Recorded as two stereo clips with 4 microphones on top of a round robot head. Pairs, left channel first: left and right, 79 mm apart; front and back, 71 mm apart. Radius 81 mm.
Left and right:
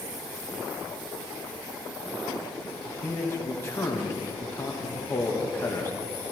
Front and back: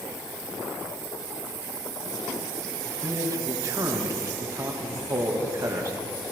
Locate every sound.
2.9 s a man speaking: 150° left, 1.5 m